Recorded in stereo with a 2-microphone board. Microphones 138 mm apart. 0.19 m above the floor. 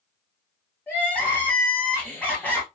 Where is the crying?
10° left (ahead or behind), 1.6 m.